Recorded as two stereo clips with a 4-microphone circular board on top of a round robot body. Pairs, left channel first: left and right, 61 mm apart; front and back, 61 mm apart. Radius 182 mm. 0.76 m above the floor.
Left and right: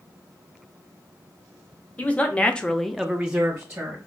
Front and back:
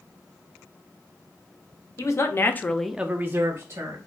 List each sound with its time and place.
2.0 s a man speaking: 30° left, 0.9 m; by 4.0 s 155° right, 1.0 m